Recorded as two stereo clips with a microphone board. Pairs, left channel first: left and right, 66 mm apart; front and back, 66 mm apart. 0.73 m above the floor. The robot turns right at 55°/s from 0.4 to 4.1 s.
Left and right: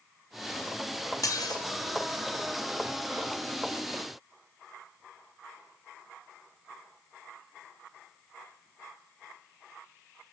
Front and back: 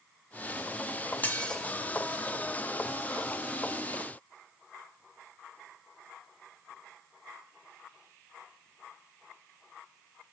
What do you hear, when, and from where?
1.2 s dishes clattering: 60° left, 0.6 m; by 1.6 s 80° left, 0.6 m